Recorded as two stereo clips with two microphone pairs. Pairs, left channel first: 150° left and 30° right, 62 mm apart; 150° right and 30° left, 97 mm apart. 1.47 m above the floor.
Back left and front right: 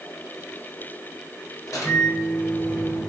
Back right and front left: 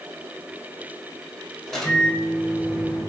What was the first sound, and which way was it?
A microwave, 125° left.